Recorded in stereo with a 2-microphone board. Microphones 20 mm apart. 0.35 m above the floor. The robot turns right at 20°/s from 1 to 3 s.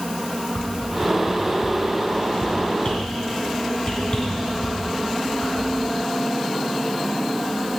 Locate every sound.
0.6 s a whoosh: 70° left (ahead or behind), 2.5 m; by 5.9 s 50° left (ahead or behind), 2.5 m